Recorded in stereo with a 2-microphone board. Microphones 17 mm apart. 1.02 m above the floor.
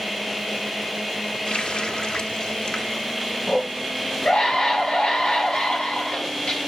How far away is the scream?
About 7 m.